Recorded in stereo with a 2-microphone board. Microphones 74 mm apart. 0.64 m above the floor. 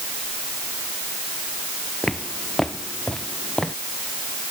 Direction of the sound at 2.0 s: 5° left (ahead or behind).